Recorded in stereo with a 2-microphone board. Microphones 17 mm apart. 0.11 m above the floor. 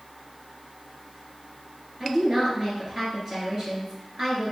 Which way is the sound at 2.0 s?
30° right (ahead or behind).